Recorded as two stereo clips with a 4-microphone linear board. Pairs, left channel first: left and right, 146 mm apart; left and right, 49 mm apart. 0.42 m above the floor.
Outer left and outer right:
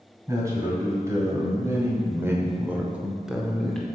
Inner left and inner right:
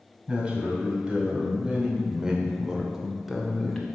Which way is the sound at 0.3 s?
20° right (ahead or behind).